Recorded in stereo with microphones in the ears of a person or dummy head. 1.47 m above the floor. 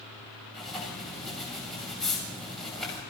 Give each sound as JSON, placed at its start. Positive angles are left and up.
{"t": 0.5, "sound": "writing", "side_deg": 5, "distance_m": 6.5}